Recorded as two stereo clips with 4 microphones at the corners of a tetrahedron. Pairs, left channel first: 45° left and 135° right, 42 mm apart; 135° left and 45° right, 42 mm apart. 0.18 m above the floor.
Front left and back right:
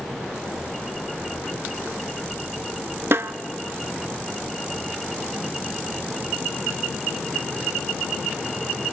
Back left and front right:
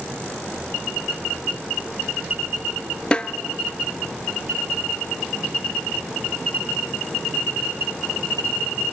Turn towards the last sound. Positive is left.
turn(degrees=-160)